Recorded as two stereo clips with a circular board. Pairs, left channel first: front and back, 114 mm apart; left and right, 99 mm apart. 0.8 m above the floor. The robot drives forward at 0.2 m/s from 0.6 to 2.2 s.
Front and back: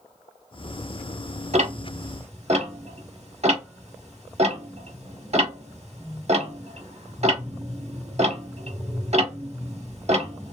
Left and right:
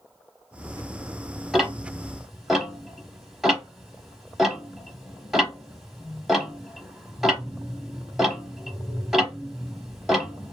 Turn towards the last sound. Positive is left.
turn(degrees=180)